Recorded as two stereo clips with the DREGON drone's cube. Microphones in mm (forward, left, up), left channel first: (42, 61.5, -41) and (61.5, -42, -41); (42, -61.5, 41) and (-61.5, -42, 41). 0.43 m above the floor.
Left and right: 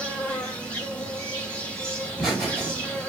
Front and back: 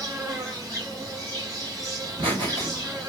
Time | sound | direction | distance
0.0 | an insect | 165° left | 1.7 m
2.0 | laughter | 170° right | 2.0 m